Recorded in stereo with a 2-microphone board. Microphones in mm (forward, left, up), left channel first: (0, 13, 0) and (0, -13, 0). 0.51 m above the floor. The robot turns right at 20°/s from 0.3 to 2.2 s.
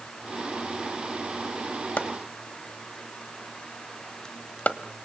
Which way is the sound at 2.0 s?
75° left (ahead or behind).